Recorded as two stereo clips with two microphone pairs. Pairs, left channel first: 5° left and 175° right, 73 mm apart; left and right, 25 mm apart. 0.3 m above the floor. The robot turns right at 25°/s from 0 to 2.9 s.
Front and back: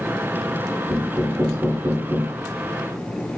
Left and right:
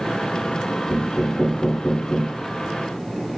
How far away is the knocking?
About 2.5 m.